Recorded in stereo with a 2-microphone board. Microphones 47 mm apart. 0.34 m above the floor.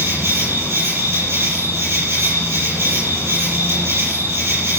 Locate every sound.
0.0 s an insect: 65° right (ahead or behind), 8 m